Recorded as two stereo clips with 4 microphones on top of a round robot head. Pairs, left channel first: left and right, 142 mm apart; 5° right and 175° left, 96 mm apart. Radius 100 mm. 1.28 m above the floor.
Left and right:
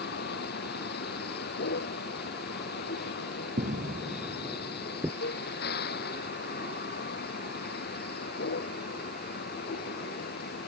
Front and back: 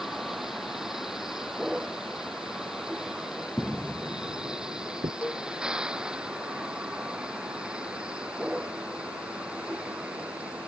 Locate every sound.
0.0 s a vehicle: 90° left; by 10.7 s 95° left
3.6 s footsteps: 90° right; by 5.1 s 170° right
5.2 s a cowbell: 70° left